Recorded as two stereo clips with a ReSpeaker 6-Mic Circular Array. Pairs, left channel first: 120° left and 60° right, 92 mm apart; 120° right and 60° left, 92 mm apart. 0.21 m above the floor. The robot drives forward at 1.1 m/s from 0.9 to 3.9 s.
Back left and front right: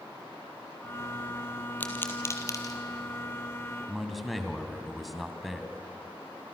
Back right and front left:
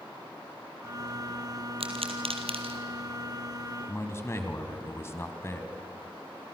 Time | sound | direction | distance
1.8 | a pop | 45° left | 2.5 m
3.9 | a man speaking | 150° right | 1.7 m